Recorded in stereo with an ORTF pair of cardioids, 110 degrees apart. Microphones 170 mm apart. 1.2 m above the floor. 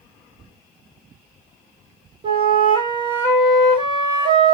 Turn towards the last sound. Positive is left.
turn(degrees=-30)